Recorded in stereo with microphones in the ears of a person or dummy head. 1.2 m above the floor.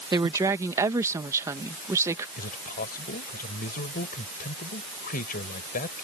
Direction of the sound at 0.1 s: 20° right (ahead or behind).